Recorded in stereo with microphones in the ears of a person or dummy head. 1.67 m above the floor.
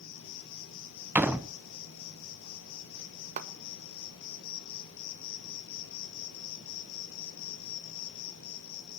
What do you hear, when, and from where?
0.0 s an insect: 70° left (ahead or behind), 3 m
1.1 s a door slam: 10° right (ahead or behind), 0.9 m
3.4 s a clap: 40° right (ahead or behind), 1.7 m